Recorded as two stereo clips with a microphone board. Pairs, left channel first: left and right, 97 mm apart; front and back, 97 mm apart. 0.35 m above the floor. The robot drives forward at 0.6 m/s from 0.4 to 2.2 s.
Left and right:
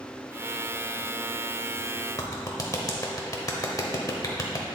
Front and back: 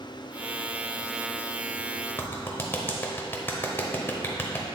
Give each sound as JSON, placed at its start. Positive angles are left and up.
{"t": 2.2, "sound": "a clap", "azimuth_deg": 55, "distance_m": 0.9}